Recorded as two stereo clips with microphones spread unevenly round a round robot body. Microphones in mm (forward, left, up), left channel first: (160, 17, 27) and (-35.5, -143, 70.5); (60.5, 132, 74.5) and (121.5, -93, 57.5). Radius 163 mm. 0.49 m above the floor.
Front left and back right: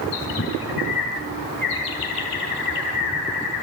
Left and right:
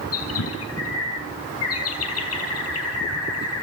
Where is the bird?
90° left, 6 m.